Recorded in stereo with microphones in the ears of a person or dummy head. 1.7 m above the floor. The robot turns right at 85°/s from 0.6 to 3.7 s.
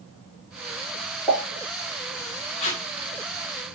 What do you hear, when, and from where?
1.3 s a pop: 5° left (ahead or behind), 2 m; by 1.4 s 20° left (ahead or behind), 2 m
2.6 s tape being pulled: 30° left (ahead or behind), 0.6 m; by 2.8 s 45° left (ahead or behind), 0.6 m